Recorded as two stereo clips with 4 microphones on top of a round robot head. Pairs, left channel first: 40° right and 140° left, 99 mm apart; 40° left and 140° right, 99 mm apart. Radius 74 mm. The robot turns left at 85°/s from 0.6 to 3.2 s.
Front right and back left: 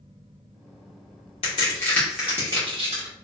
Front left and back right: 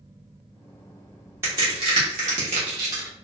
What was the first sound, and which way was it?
A crack, 75° right.